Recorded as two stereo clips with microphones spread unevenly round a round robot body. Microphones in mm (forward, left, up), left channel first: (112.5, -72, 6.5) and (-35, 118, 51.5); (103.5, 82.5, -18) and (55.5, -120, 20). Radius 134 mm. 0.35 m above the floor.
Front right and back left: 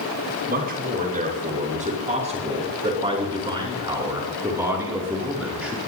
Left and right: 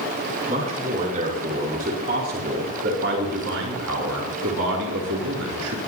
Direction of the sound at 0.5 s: 175° right.